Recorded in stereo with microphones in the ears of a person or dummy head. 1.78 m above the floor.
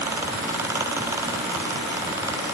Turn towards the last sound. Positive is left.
No sound to turn to.